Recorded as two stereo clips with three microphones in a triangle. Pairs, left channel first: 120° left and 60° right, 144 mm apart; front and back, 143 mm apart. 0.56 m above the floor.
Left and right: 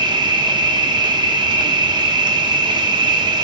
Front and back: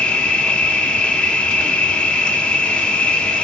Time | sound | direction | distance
0.0 | an insect | 75° right | 0.9 m